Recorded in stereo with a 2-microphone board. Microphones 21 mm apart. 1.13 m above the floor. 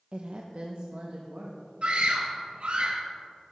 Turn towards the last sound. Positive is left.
turn(degrees=-75)  # may be behind; listen again after turning